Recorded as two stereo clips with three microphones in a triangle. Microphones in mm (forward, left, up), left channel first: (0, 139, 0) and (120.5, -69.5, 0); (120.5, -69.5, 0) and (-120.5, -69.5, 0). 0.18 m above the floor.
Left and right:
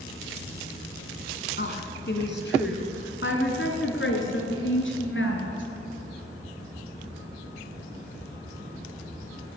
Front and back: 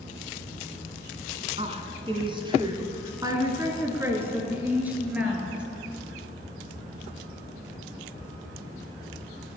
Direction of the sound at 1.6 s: 130° left.